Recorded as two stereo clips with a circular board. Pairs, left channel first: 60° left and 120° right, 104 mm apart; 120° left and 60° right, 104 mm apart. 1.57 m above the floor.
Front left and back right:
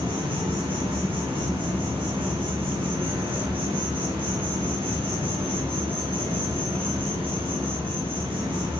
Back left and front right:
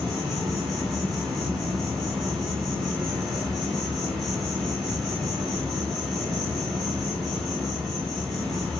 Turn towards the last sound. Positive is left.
turn(degrees=-150)